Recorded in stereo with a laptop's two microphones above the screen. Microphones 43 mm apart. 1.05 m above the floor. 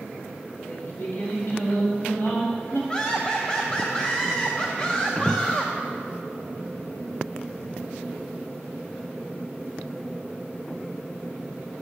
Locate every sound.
0.7 s singing: 60° left (ahead or behind), 1.9 m
2.9 s laughter: 20° left (ahead or behind), 0.7 m